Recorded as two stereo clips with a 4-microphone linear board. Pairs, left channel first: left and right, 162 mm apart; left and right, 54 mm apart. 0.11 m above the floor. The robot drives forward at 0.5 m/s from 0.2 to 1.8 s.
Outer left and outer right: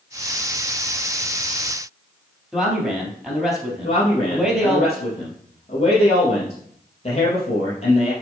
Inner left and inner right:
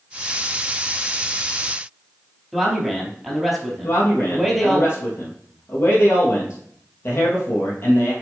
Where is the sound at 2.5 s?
5° right (ahead or behind), 3.5 m.